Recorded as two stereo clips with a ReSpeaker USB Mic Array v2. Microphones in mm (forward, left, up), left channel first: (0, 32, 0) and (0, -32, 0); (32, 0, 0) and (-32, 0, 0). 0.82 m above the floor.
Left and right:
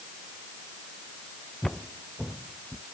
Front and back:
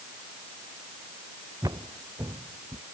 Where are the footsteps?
Straight behind; by 2.8 s 175° left.